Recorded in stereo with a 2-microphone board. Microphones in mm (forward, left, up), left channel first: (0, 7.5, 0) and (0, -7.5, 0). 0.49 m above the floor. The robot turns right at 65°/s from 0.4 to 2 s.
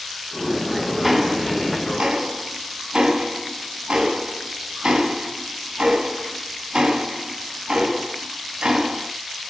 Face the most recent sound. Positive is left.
turn(degrees=-75)  # may be behind; listen again after turning